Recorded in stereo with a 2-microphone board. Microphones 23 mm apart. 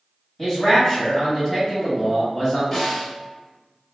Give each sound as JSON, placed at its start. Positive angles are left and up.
{"t": 0.4, "sound": "a man speaking", "side_deg": 5, "distance_m": 1.7}
{"t": 2.7, "sound": "a snare drum", "side_deg": 15, "distance_m": 1.2}